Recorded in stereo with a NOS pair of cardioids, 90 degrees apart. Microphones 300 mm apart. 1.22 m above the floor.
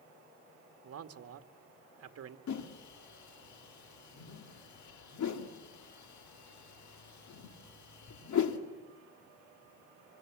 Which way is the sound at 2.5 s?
60° left.